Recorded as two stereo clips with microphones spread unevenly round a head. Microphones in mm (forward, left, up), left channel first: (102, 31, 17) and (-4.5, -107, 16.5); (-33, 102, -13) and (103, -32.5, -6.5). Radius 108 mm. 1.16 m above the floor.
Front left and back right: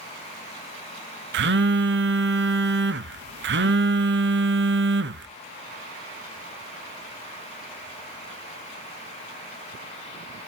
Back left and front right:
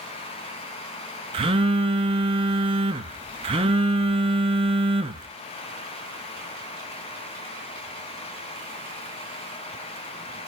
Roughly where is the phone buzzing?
Right.